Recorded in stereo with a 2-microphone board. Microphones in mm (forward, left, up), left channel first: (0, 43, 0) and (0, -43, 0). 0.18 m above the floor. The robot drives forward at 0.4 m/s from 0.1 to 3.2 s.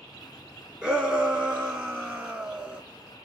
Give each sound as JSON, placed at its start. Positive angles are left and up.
{"t": 0.8, "sound": "a shout", "side_deg": -15, "distance_m": 3.0}